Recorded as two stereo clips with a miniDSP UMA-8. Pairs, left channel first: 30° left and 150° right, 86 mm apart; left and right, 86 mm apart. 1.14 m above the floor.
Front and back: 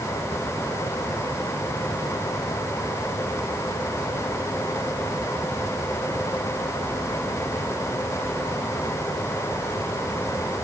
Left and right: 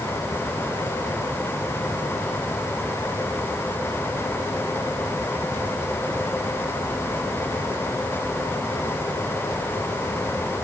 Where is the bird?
I don't hear a bird.